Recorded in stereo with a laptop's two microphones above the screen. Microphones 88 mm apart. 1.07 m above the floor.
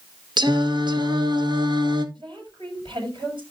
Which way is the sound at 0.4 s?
60° right (ahead or behind).